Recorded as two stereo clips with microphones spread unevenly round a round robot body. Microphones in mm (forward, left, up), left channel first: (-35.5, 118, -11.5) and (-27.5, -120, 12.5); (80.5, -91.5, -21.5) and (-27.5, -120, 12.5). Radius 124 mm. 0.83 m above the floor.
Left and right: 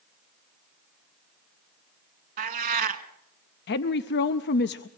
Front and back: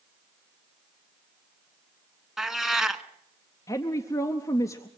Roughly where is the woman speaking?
Ahead left.